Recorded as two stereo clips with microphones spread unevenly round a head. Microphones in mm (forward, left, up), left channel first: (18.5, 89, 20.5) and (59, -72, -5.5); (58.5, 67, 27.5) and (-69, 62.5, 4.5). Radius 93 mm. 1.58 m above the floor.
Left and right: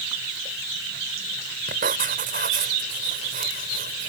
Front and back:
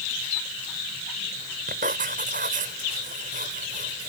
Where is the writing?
130° right.